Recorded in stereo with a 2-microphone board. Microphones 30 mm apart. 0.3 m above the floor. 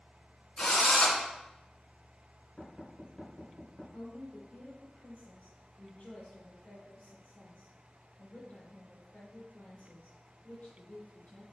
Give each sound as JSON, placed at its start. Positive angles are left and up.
{"t": 0.6, "sound": "a drill", "side_deg": 35, "distance_m": 2.5}
{"t": 2.6, "sound": "knocking", "side_deg": 25, "distance_m": 2.5}
{"t": 3.9, "sound": "a woman speaking", "side_deg": 65, "distance_m": 3.0}